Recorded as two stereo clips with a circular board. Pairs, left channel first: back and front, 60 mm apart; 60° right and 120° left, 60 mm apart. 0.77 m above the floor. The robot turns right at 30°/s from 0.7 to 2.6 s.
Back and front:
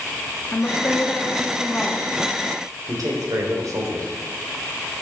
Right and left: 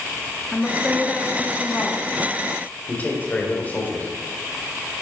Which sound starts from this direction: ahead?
A man speaking, at 2.9 s.